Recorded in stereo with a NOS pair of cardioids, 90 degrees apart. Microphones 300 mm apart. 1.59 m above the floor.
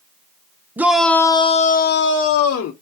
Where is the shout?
5° right, 0.9 m; by 2.7 s 60° left, 1.1 m.